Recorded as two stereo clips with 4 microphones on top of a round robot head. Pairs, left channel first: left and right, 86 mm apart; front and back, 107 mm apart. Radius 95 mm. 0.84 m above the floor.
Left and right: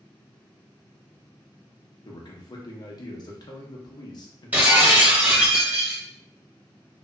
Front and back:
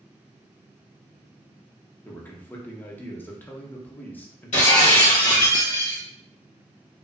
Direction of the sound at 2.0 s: 70° left.